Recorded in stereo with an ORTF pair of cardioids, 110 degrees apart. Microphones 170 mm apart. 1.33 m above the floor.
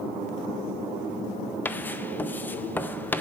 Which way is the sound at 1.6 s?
10° left.